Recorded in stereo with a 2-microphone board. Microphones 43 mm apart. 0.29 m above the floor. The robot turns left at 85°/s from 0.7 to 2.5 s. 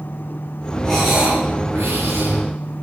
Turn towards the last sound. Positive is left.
turn(degrees=-130)